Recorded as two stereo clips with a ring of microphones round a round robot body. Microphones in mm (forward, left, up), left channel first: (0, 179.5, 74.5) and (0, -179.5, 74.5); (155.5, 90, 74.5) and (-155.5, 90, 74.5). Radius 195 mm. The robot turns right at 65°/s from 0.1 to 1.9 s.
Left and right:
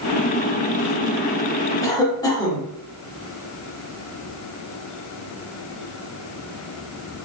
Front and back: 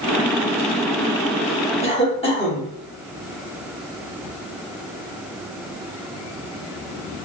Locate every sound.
1.8 s a cough: 25° left, 1.3 m; by 2.7 s 30° left, 1.3 m